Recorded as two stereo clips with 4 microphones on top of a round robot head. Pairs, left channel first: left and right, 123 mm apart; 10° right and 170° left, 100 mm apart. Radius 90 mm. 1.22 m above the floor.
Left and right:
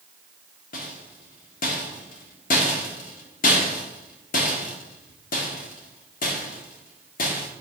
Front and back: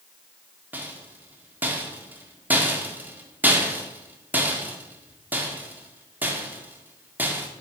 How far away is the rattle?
About 1.7 m.